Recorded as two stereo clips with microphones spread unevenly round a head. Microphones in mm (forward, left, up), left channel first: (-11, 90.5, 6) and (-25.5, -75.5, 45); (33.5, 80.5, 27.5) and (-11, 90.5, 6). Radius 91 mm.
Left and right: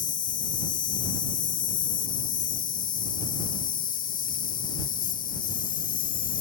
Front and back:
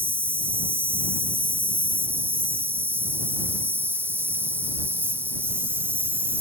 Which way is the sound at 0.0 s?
125° left.